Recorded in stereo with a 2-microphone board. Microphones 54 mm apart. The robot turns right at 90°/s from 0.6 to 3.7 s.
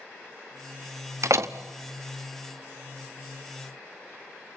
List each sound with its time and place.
1.2 s a door slam: 80° right, 0.8 m; by 1.5 s 60° right (ahead or behind), 0.8 m